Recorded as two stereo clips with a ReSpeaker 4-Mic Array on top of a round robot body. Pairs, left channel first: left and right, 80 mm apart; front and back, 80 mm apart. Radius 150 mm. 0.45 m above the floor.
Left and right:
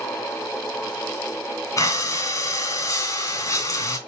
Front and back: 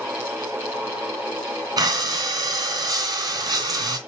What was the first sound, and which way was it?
Breathing, 140° left.